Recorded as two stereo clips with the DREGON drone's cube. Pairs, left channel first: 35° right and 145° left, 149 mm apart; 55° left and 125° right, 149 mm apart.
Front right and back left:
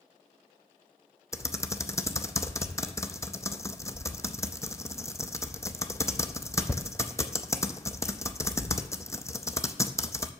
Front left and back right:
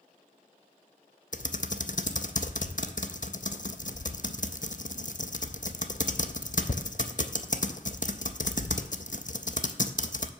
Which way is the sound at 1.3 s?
35° left.